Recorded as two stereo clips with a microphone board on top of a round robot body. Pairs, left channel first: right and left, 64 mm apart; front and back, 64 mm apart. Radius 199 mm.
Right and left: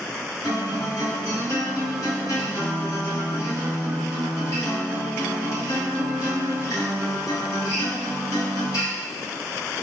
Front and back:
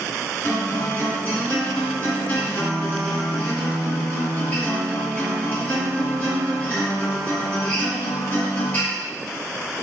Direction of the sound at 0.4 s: 65° right.